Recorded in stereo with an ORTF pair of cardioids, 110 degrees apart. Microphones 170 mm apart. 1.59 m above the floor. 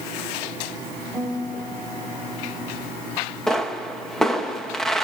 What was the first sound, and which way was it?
A guitar, straight ahead.